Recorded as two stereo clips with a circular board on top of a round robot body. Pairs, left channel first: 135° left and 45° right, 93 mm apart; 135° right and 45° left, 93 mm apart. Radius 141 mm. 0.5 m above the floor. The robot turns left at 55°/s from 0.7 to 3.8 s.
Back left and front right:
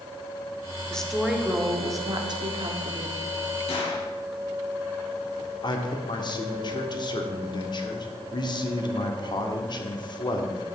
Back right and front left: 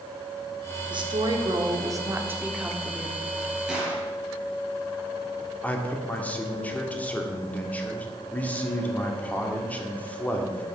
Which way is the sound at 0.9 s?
55° left.